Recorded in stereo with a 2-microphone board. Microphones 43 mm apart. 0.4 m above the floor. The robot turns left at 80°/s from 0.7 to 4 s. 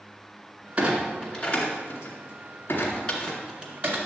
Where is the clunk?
25° right (ahead or behind), 2 m; by 4.0 s 50° right (ahead or behind), 2 m.